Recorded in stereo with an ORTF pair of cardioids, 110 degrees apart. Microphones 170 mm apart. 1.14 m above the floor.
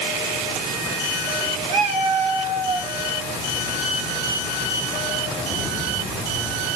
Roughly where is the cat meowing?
Ahead right.